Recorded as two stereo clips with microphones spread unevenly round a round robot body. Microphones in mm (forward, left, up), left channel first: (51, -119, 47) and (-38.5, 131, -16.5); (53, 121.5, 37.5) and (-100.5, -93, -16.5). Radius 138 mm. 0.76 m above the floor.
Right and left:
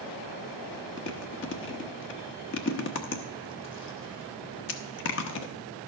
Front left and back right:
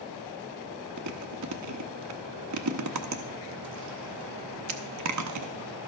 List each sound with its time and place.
1.0 s chewing: 120° right, 1.0 m